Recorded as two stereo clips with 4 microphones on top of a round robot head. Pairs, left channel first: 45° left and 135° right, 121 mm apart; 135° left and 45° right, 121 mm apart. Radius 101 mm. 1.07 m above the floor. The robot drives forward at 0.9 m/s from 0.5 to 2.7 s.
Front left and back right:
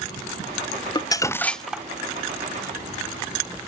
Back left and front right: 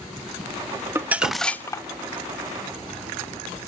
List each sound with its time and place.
0.9 s crumpling: 15° left, 0.8 m; by 1.9 s 160° left, 0.7 m